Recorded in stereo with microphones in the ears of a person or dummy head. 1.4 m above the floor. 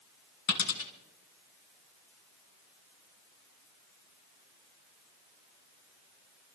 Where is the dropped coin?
55° left (ahead or behind), 2 m.